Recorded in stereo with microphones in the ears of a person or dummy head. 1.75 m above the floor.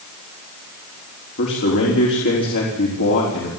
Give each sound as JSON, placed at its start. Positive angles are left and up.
{"t": 1.4, "sound": "a man speaking", "side_deg": 60, "distance_m": 5.0}